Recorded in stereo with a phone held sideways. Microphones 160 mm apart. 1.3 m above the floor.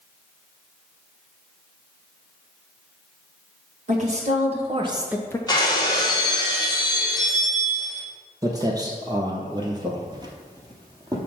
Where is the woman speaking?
45° right (ahead or behind), 2 m; by 5.4 s 25° left (ahead or behind), 0.5 m.